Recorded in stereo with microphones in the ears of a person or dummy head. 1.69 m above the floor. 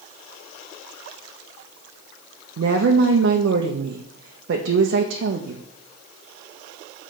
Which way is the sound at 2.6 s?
70° right (ahead or behind).